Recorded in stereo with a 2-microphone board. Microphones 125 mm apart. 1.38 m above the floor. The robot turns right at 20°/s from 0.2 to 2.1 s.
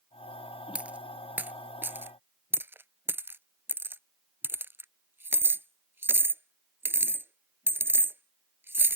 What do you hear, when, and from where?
0.8 s a dropped coin: 10° right (ahead or behind); by 9.0 s 15° right (ahead or behind)